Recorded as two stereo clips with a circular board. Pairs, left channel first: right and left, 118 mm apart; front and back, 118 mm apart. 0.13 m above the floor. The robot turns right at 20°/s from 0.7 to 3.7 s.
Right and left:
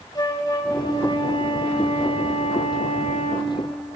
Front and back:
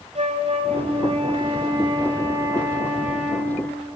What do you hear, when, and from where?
0.1 s a flute: 150° right, 3.5 m; by 3.5 s 90° right, 3.5 m